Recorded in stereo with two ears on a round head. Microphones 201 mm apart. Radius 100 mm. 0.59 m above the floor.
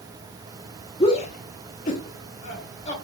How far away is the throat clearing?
I don't hear throat clearing.